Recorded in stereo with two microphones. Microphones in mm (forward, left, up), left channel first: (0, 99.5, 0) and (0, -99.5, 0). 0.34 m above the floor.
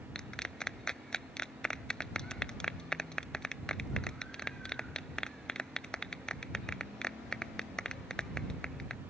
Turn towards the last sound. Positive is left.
turn(degrees=5)  # may be behind; listen again after turning